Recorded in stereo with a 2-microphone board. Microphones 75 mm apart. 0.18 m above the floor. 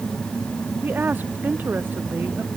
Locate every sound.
0.8 s a woman speaking: 25° right (ahead or behind)